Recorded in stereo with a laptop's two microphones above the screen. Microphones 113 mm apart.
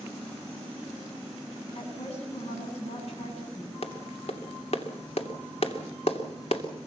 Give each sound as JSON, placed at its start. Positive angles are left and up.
{"t": 1.8, "sound": "a woman speaking", "side_deg": 70, "distance_m": 9.5}
{"t": 3.8, "sound": "a clap", "side_deg": 65, "distance_m": 2.5}